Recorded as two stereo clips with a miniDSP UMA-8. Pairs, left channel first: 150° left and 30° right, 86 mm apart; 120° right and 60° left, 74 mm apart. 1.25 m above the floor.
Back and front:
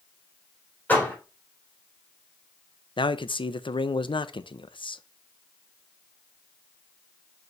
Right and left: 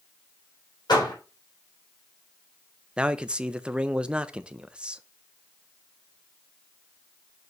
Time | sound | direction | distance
0.9 | a door slam | 140° right | 3.5 m
3.0 | a man speaking | 140° left | 0.5 m